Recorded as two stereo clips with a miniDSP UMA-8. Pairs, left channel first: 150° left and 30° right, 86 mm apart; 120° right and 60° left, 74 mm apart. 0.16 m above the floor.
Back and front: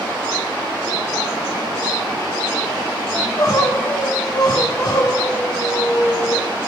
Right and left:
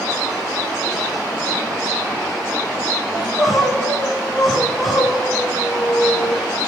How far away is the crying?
About 2 m.